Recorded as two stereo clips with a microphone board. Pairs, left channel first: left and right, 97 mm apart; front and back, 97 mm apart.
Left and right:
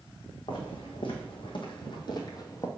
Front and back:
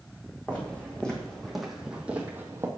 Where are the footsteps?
75° left, 2.5 m; by 2.7 s 130° left, 1.4 m.